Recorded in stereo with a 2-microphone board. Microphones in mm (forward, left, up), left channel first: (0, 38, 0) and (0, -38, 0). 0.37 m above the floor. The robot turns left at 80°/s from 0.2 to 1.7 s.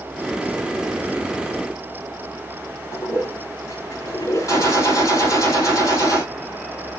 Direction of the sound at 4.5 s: 50° left (ahead or behind).